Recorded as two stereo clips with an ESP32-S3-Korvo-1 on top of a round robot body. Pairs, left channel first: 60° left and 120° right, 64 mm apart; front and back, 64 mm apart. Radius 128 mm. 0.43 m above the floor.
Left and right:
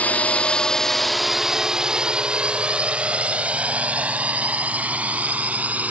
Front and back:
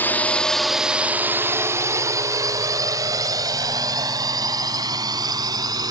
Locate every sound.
0.0 s a drone: 15° left; by 5.9 s 170° left